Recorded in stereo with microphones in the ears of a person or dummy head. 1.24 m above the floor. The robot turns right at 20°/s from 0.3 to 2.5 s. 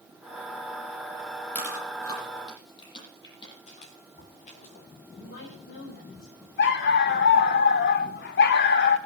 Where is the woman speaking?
65° left (ahead or behind), 4.5 m.